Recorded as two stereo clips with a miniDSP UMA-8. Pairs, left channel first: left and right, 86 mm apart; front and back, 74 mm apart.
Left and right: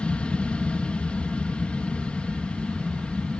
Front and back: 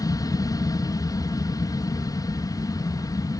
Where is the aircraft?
15° left.